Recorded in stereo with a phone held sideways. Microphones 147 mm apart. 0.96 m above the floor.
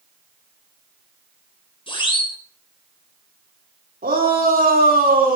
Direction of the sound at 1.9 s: 35° left (ahead or behind).